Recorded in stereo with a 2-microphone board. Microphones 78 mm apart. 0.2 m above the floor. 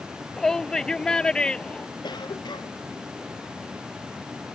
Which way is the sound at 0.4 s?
5° left (ahead or behind).